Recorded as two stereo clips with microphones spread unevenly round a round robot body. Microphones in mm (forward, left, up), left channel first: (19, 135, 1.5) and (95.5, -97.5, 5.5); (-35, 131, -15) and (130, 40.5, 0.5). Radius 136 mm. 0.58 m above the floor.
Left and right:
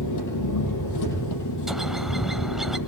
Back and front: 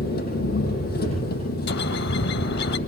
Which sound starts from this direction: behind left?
An engine running, at 0.0 s.